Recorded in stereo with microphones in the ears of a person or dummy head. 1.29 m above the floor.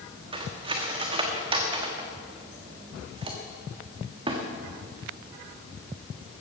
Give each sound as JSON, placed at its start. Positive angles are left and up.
{"t": 0.3, "sound": "cutlery clinking", "side_deg": -25, "distance_m": 1.4}